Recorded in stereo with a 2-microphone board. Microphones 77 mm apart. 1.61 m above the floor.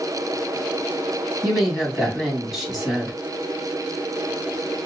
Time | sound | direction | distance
1.4 | a woman speaking | centre (ahead or behind) | 3 m